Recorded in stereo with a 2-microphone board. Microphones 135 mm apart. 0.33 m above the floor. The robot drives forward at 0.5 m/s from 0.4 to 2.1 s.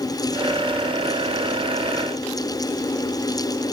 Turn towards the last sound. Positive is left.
No sound to turn to.